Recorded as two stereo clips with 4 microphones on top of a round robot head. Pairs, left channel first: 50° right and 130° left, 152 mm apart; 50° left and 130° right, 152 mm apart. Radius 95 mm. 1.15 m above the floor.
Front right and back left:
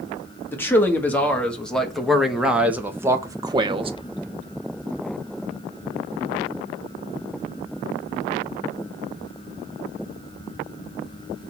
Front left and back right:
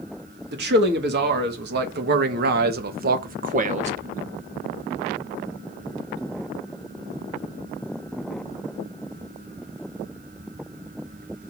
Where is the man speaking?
125° right, 2.5 m; by 3.9 s 175° right, 1.1 m.